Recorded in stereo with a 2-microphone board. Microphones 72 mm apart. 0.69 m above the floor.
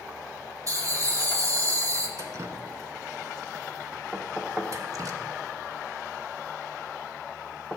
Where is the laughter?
50° right (ahead or behind), 1.9 m.